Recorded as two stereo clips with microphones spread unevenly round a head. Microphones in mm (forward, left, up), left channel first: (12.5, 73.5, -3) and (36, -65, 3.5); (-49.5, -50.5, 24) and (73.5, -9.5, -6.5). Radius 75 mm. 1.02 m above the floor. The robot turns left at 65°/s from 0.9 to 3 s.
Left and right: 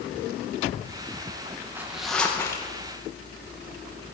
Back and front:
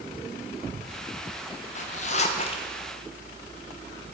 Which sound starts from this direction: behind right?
A zipper, at 1.8 s.